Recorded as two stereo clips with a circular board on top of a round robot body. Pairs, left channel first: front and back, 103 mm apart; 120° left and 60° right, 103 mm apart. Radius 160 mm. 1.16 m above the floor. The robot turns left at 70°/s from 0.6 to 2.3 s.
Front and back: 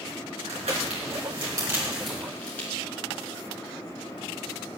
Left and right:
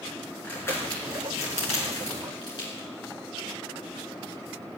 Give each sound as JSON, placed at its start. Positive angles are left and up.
{"t": 0.4, "sound": "crumpling", "azimuth_deg": -165, "distance_m": 4.0}